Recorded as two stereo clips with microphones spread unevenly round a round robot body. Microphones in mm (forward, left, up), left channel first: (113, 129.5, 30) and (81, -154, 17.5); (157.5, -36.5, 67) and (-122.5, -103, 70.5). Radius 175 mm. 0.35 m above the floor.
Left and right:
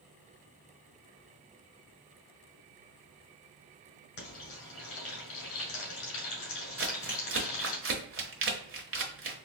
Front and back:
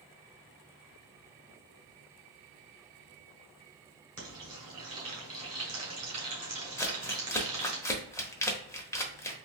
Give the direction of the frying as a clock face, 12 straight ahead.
8 o'clock.